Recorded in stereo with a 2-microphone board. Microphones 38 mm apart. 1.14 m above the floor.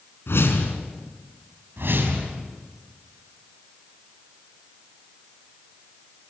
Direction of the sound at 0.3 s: 80° left.